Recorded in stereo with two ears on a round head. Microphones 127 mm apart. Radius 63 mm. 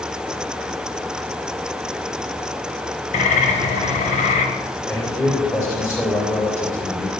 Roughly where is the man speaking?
Centre.